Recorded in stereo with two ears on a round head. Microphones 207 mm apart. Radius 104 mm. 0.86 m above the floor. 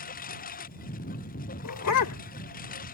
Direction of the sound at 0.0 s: 40° left (ahead or behind).